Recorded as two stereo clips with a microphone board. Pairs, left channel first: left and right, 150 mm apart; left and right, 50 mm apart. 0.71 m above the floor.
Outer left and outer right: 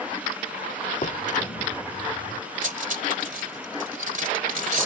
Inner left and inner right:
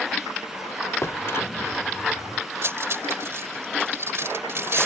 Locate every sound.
1.0 s a drawer: 60° left (ahead or behind)
2.6 s cutlery clinking: 60° right (ahead or behind)